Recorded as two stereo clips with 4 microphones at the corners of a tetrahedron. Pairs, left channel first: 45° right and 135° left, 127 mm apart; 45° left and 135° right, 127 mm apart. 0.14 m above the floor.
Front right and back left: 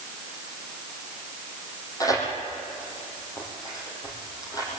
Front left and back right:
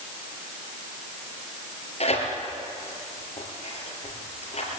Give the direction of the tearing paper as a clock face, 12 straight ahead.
12 o'clock.